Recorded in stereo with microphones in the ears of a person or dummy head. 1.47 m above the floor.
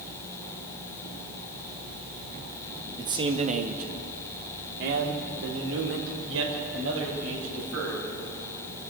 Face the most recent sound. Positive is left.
turn(degrees=-85)